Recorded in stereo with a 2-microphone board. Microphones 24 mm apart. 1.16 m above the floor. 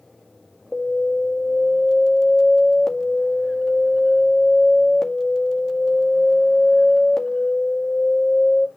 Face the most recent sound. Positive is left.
turn(degrees=25)  # may be behind; listen again after turning